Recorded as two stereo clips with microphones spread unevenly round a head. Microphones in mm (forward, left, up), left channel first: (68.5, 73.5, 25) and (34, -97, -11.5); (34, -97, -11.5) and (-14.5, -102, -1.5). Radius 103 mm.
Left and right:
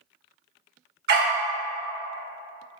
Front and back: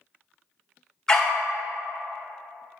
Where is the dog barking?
80° right, 1.4 m.